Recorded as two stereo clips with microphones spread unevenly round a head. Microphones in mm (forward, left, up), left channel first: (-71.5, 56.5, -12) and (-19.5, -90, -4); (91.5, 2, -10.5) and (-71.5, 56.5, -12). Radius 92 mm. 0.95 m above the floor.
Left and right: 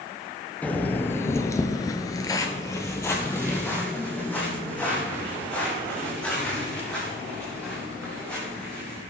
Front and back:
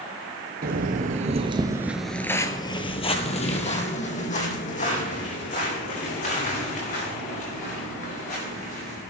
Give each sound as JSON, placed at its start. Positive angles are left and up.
{"t": 0.6, "sound": "footsteps", "azimuth_deg": -170, "distance_m": 1.5}